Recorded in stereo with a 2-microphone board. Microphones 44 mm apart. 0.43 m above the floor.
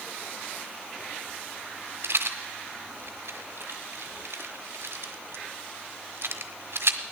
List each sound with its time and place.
2.0 s a rattle: 65° right (ahead or behind), 1.2 m